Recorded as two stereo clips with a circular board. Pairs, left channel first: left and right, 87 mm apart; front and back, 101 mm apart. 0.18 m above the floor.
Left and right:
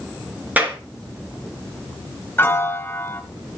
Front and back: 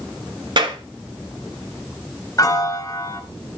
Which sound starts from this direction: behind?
A clap, at 0.6 s.